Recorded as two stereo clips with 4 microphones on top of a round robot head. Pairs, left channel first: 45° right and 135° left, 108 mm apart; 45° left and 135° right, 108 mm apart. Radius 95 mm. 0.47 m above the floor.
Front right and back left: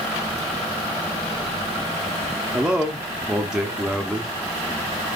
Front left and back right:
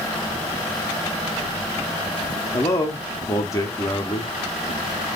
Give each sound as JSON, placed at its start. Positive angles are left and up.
{"t": 2.5, "sound": "a man speaking", "azimuth_deg": 60, "distance_m": 0.7}